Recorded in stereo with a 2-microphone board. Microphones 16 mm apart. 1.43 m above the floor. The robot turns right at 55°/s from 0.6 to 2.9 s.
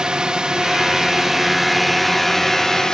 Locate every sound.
0.0 s a drone: 75° right; by 3.0 s 50° left